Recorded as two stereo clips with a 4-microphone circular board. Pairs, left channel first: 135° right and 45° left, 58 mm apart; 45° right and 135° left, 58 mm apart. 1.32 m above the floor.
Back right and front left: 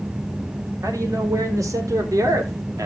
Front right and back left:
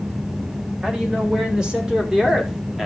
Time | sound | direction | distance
0.8 | a man speaking | 60° left | 4.5 m